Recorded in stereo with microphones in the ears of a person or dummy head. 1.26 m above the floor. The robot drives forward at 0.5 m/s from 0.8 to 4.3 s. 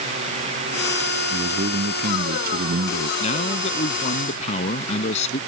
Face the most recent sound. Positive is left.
turn(degrees=45)  # may be behind; listen again after turning